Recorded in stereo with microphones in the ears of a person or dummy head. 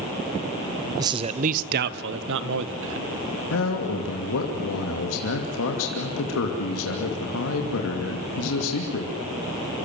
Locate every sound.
1.0 s a man speaking: 20° right (ahead or behind), 0.7 m; by 3.1 s 75° right (ahead or behind), 1.8 m
3.5 s a man speaking: 80° left, 2.5 m